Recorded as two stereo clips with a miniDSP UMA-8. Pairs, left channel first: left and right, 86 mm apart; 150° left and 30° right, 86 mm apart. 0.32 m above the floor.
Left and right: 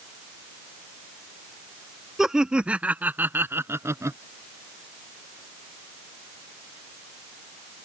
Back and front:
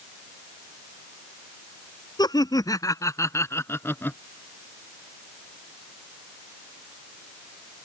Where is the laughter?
175° right; by 4.2 s 145° right.